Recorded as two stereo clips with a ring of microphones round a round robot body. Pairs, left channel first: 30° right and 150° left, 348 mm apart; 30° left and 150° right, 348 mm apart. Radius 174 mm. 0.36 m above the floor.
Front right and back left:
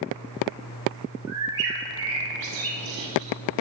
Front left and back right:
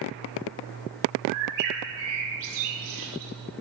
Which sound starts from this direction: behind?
A bird, at 1.3 s.